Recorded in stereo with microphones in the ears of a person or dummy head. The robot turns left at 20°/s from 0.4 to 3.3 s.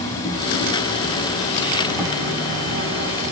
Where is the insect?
20° left, 3 m; by 3.3 s 40° right, 3 m.